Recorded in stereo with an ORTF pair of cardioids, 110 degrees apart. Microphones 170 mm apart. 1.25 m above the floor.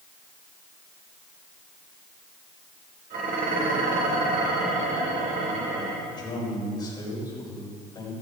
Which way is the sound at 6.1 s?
25° left.